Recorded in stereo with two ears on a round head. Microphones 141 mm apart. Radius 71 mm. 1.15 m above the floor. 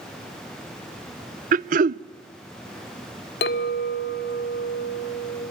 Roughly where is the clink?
Left.